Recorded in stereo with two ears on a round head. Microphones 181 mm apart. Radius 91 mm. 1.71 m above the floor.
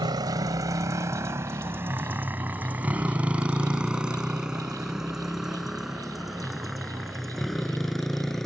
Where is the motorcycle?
20° right (ahead or behind); by 8.5 s centre (ahead or behind).